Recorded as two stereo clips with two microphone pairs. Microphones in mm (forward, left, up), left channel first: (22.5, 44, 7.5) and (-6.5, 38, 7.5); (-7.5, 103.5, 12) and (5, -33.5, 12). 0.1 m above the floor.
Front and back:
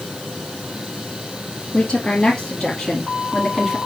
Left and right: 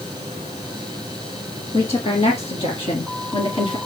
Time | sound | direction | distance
1.7 | a woman speaking | 65° left | 2.5 m